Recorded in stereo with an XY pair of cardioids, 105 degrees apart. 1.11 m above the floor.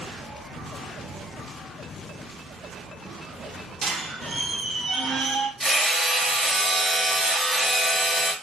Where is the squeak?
40° right, 0.8 m.